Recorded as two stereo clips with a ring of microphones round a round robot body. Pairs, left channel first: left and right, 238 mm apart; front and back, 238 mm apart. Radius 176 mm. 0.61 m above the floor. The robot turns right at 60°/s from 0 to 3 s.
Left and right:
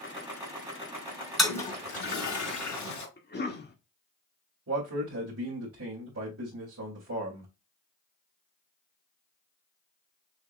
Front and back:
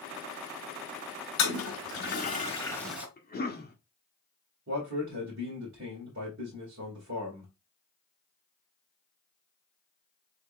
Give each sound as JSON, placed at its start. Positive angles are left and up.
{"t": 1.4, "sound": "a toilet flushing", "azimuth_deg": 0, "distance_m": 3.5}
{"t": 3.2, "sound": "a cough", "azimuth_deg": 45, "distance_m": 2.0}
{"t": 4.7, "sound": "a man speaking", "azimuth_deg": -130, "distance_m": 1.9}